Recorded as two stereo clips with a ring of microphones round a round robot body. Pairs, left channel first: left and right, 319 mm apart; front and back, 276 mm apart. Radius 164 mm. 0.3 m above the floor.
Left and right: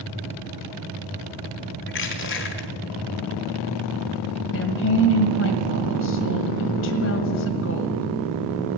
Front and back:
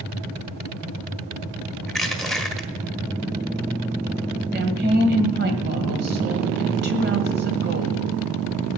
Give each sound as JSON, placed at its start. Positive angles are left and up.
{"t": 1.9, "sound": "crushing", "azimuth_deg": 90, "distance_m": 1.5}
{"t": 4.5, "sound": "a woman speaking", "azimuth_deg": 135, "distance_m": 1.7}